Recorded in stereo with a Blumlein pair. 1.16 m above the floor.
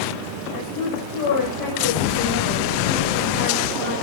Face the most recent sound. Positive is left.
turn(degrees=40)